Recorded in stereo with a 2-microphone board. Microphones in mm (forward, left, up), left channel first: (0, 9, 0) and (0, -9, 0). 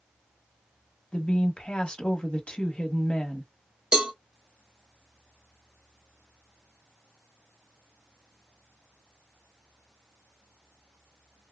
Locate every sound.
1.1 s a woman speaking: 75° left (ahead or behind), 1.0 m
3.9 s a cowbell: 45° right (ahead or behind), 1.0 m